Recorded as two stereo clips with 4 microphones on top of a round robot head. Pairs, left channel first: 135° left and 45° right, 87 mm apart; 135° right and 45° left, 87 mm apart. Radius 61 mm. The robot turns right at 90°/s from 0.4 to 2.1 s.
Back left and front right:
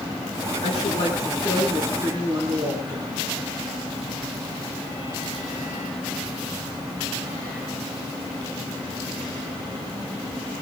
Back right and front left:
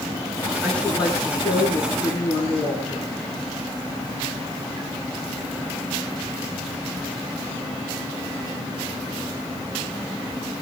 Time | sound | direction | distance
0.6 | a woman speaking | 130° left | 9.5 m